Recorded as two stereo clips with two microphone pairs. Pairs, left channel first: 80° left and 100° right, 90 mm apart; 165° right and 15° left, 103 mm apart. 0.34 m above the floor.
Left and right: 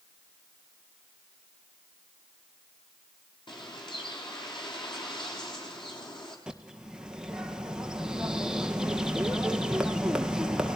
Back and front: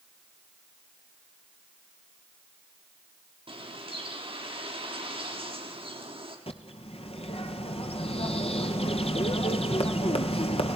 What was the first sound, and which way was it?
A bird, 50° left.